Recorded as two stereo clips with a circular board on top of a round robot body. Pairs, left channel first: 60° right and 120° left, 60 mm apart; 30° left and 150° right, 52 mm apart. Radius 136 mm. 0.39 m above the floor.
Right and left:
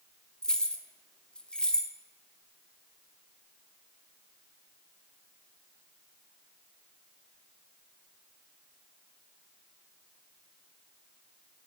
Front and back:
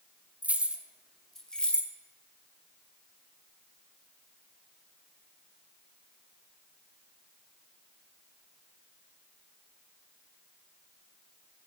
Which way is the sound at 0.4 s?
125° right.